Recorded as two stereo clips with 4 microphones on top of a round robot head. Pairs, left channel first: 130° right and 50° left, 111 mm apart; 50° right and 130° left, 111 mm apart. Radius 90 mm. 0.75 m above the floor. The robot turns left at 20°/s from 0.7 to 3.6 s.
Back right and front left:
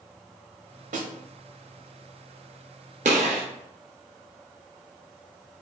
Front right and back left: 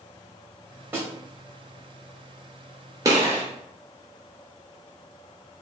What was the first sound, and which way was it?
A snare drum, 60° left.